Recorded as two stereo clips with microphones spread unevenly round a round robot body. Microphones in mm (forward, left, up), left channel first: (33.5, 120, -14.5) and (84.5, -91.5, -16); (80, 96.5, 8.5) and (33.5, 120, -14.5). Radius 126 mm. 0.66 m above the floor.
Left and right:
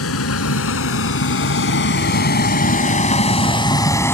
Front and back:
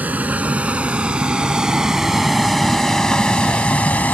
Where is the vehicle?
90° left; by 4.1 s 25° left.